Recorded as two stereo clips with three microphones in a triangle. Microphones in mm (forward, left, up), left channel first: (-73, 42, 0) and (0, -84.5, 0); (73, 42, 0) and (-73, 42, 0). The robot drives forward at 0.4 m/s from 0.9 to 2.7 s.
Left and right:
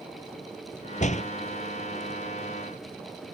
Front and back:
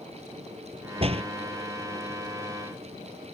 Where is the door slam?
140° left.